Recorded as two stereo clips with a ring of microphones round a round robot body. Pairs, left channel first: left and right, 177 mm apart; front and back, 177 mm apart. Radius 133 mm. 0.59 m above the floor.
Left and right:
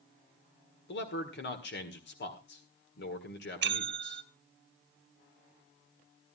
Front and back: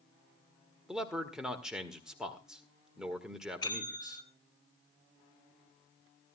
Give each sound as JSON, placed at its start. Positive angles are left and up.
{"t": 0.9, "sound": "a man speaking", "azimuth_deg": 95, "distance_m": 1.9}
{"t": 3.6, "sound": "a bell", "azimuth_deg": -75, "distance_m": 1.0}